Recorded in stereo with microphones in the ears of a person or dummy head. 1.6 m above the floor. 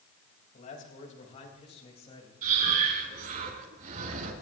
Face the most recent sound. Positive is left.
turn(degrees=-45)  # may be behind; listen again after turning